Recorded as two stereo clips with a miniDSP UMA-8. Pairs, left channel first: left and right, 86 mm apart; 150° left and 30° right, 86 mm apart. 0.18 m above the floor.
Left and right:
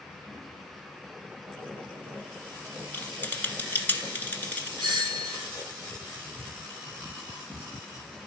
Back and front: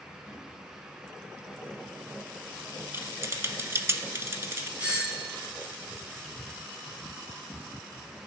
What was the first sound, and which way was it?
Typing on a keyboard, 25° left.